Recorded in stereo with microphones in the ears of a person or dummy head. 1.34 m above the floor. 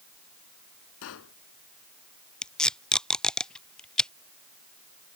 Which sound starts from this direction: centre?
Tape being pulled, at 2.4 s.